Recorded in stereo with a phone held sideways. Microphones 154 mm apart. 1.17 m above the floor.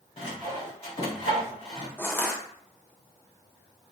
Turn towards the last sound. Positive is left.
turn(degrees=15)  # may be behind; listen again after turning